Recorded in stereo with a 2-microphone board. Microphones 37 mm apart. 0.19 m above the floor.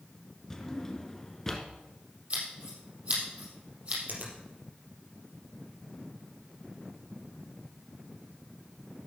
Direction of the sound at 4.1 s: 55° right (ahead or behind).